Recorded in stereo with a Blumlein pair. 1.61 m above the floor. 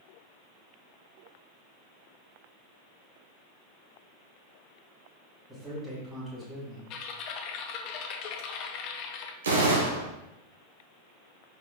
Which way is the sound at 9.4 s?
70° right.